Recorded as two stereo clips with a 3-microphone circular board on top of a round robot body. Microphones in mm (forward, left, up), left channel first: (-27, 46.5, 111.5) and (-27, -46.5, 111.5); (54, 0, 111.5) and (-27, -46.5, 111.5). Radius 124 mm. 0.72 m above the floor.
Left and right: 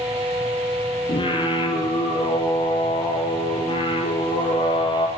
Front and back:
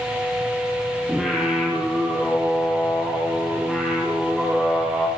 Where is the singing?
125° left, 7 m.